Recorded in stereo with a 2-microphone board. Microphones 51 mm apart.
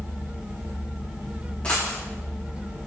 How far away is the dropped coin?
About 5 m.